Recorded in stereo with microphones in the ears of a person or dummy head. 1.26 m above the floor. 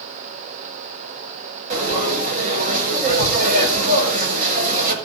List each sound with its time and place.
1.7 s frying: 45° right (ahead or behind), 4.5 m